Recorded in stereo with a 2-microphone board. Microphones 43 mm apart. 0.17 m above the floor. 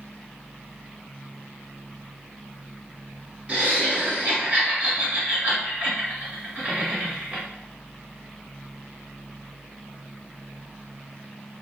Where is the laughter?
35° right (ahead or behind), 1.4 m.